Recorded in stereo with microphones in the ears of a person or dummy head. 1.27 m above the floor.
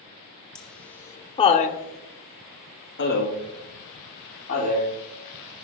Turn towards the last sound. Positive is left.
turn(degrees=40)  # may be behind; listen again after turning